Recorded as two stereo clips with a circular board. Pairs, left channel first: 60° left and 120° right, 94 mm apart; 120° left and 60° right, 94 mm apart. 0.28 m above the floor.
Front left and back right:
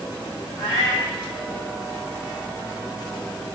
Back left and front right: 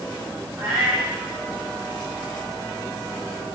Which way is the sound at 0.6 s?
Straight ahead.